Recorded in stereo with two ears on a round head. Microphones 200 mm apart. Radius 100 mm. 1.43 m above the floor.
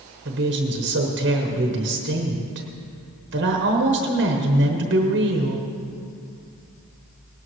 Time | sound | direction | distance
0.2 | a woman speaking | 50° right (ahead or behind) | 1.1 m